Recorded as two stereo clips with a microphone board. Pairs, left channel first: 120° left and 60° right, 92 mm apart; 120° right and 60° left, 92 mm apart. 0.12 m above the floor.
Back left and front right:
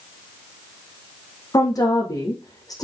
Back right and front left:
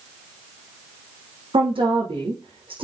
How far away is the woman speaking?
About 5 m.